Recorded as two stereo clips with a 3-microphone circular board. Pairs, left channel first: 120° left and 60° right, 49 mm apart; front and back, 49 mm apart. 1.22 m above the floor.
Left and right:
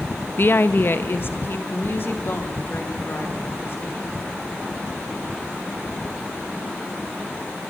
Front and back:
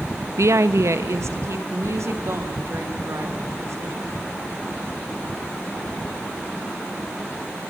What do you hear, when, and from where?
0.4 s a woman speaking: 165° left, 0.6 m; by 4.1 s 160° left, 4 m